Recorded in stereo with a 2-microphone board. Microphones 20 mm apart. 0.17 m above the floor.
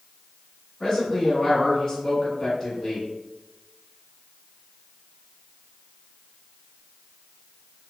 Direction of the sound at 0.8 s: 25° left (ahead or behind).